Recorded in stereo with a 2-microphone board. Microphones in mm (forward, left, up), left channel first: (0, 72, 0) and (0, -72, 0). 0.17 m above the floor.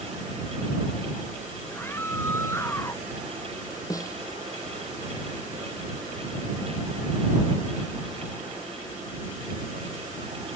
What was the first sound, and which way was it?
A scream, 15° left (ahead or behind).